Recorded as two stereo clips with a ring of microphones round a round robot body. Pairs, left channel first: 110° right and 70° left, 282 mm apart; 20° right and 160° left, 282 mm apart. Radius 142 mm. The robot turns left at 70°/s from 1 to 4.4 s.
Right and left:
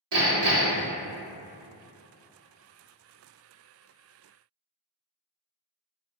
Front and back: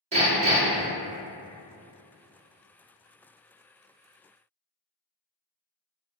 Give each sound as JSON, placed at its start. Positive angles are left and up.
{"t": 0.1, "sound": "hammering", "azimuth_deg": 90, "distance_m": 1.3}